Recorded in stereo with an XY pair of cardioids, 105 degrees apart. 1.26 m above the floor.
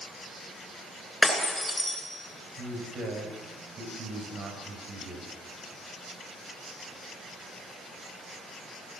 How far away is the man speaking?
About 6.5 m.